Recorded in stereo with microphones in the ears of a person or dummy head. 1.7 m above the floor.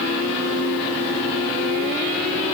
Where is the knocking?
I don't hear knocking.